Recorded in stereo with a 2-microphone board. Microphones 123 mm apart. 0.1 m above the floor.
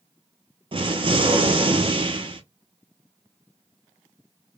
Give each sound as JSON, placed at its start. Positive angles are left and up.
{"t": 0.7, "sound": "an explosion", "side_deg": -45, "distance_m": 0.7}